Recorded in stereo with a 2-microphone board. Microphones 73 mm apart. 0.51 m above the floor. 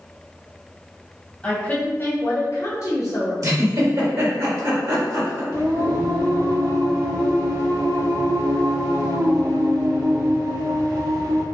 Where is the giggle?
50° right (ahead or behind), 1.9 m.